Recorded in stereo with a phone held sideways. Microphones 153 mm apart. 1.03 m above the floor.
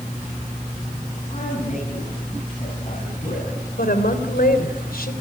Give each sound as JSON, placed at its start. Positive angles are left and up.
{"t": 1.3, "sound": "a man speaking", "side_deg": 55, "distance_m": 9.0}
{"t": 3.8, "sound": "a woman speaking", "side_deg": 75, "distance_m": 3.5}